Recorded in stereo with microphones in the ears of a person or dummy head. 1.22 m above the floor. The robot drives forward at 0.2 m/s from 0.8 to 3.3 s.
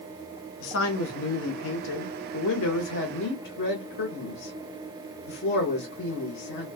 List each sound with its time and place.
0.6 s a man speaking: 75° left (ahead or behind), 0.8 m; by 6.7 s 65° left (ahead or behind), 0.9 m